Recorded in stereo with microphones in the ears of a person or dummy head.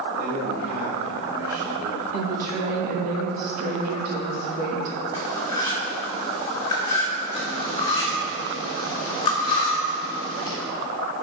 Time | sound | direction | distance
0.2 | a man speaking | 55° right (ahead or behind) | 2.0 m
2.1 | a woman speaking | 50° right (ahead or behind) | 2.5 m
5.1 | cutlery clinking | 25° left (ahead or behind) | 2.5 m
7.3 | cutlery clinking | 35° left (ahead or behind) | 2 m